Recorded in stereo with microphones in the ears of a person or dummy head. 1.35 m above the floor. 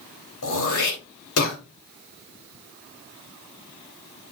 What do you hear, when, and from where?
0.4 s throat clearing: 80° left, 3 m